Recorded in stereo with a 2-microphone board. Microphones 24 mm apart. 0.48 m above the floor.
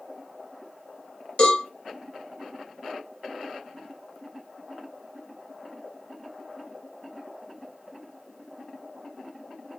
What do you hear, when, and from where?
1.4 s a cowbell: 50° left (ahead or behind), 1.2 m